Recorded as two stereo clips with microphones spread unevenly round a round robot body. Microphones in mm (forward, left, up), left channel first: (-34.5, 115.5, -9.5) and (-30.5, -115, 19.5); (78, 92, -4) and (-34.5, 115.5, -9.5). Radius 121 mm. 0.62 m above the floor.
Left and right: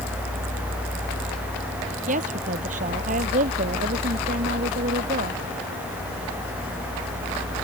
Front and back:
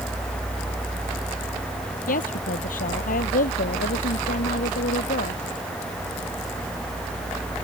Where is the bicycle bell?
No bicycle bell in this recording.